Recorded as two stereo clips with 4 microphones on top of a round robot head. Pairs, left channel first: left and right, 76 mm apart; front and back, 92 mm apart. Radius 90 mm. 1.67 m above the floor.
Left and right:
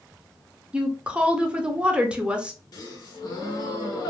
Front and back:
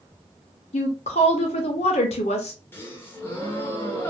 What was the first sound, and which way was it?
A woman speaking, 15° right.